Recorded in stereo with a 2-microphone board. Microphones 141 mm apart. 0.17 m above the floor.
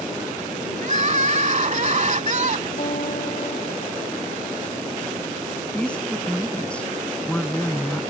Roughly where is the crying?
Right.